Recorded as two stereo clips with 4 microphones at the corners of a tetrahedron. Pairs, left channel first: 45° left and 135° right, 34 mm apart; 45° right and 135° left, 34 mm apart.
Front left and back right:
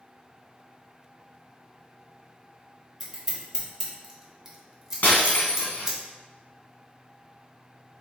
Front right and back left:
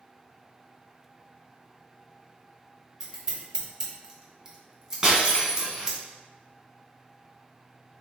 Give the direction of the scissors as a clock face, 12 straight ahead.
6 o'clock.